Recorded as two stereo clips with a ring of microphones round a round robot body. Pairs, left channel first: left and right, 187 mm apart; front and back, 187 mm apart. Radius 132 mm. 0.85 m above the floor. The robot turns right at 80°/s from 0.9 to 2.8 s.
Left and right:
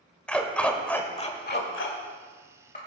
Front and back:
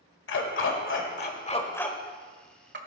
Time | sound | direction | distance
0.3 | a dog barking | 5° left | 1.5 m